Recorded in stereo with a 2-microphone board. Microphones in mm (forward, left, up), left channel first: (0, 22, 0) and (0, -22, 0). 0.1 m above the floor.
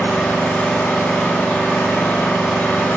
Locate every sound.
0.0 s an engine running: 35° left (ahead or behind), 5 m